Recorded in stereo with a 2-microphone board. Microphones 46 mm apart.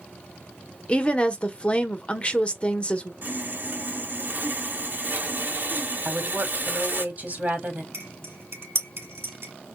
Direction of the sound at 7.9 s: 70° right (ahead or behind).